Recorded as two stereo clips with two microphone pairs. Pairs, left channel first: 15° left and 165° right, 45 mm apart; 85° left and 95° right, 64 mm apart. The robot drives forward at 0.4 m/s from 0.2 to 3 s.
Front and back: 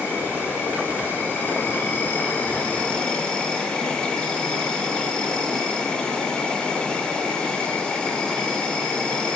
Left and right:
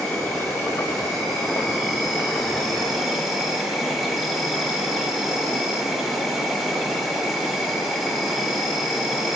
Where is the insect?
Straight ahead, 1.4 m; by 9.4 s 5° right, 0.6 m.